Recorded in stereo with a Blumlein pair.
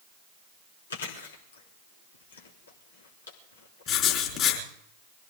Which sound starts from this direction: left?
Chewing, at 0.9 s.